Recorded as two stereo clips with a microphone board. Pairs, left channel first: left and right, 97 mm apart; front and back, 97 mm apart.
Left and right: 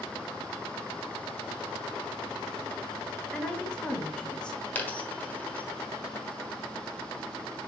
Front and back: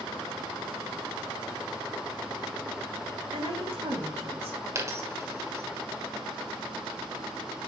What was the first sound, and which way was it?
A woman speaking, 170° left.